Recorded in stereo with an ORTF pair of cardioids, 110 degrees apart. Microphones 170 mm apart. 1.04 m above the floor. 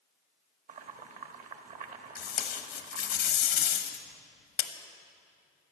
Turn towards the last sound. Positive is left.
turn(degrees=70)